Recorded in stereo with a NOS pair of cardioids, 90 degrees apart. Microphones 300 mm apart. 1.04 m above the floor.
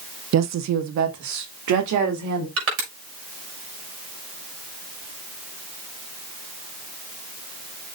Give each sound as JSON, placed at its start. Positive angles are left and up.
{"t": 0.3, "sound": "a woman speaking", "azimuth_deg": -60, "distance_m": 1.0}
{"t": 2.6, "sound": "crushing", "azimuth_deg": -55, "distance_m": 6.5}